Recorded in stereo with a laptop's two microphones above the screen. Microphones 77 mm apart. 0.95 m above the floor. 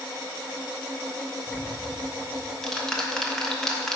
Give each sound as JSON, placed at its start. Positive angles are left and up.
{"t": 1.5, "sound": "ticking", "side_deg": 5, "distance_m": 0.8}